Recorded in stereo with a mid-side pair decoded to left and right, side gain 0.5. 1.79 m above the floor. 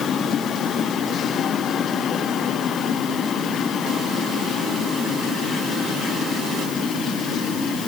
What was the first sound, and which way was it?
Only background noise.